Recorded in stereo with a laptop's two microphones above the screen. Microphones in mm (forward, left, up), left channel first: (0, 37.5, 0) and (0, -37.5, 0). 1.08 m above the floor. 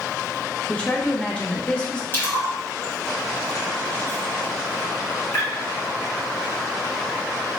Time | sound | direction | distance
0.7 | a woman speaking | 15° left (ahead or behind) | 0.9 m
2.1 | a splash | 30° left (ahead or behind) | 1.1 m